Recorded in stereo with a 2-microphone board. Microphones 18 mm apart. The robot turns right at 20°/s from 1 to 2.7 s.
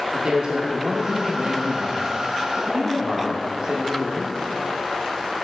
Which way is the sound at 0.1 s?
100° right.